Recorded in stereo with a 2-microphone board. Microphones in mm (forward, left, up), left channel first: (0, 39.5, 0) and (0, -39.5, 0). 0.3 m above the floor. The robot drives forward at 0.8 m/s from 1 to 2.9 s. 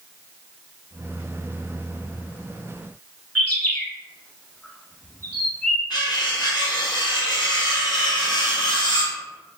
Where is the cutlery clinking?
70° left (ahead or behind), 1.8 m.